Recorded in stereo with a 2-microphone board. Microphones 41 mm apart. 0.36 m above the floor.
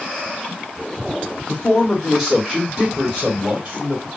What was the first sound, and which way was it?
A man speaking, 10° left (ahead or behind).